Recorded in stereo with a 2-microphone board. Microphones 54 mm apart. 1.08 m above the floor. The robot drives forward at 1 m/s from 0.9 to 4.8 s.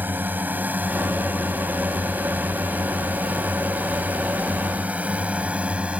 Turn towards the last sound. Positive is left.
turn(degrees=-25)  # may be behind; listen again after turning